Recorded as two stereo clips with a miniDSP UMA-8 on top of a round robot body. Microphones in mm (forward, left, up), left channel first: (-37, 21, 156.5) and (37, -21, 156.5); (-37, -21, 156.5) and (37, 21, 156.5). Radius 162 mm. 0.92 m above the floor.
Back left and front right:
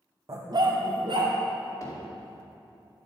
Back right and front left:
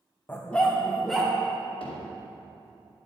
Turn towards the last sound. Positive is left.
turn(degrees=-160)